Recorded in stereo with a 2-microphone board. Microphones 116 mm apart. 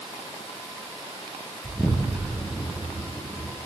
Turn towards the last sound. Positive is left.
turn(degrees=15)  # may be behind; listen again after turning